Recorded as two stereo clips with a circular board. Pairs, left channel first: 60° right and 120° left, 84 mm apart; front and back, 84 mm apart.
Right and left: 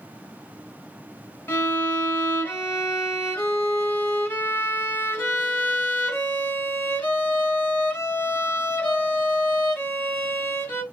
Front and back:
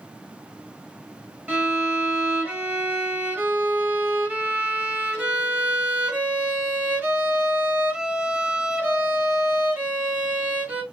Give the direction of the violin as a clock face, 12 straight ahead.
4 o'clock.